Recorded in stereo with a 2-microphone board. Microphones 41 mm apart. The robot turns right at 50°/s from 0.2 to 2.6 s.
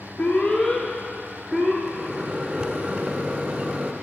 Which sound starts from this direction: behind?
A microwave, at 1.8 s.